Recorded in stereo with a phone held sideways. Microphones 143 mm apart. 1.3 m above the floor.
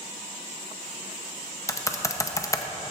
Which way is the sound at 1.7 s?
20° left (ahead or behind).